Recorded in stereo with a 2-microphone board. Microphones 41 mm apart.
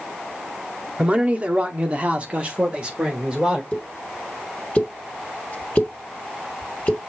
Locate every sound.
1.0 s a man speaking: 25° right (ahead or behind), 1.0 m
3.7 s a pop: 30° left (ahead or behind), 1.4 m